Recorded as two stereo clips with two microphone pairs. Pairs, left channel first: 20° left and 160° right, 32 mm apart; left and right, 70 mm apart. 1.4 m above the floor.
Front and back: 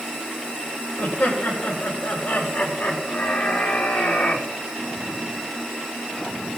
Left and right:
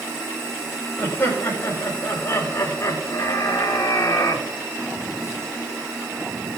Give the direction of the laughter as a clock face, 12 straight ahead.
11 o'clock.